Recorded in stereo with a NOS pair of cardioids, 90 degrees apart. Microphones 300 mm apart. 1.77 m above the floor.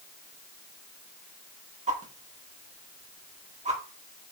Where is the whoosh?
25° right, 1.9 m.